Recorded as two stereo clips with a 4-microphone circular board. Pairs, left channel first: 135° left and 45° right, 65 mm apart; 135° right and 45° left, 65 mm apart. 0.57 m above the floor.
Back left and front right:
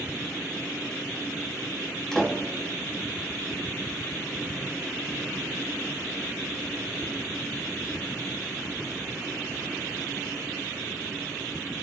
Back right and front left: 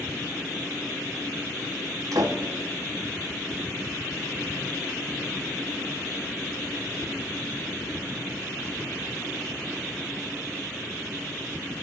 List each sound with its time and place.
2.1 s a door slam: 50° left, 4 m